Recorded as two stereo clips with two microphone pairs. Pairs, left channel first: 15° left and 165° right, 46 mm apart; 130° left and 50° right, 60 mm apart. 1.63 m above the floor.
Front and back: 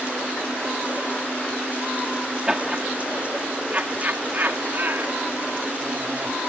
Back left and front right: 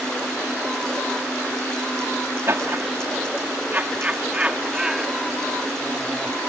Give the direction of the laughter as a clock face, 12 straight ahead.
3 o'clock.